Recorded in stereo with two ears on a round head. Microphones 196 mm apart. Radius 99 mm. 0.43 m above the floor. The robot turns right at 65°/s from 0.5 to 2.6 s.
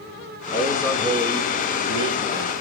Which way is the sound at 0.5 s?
150° left.